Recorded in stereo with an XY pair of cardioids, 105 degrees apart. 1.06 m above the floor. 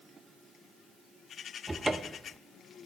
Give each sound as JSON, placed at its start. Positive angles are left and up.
{"t": 1.7, "sound": "a cupboard door", "azimuth_deg": -15, "distance_m": 0.6}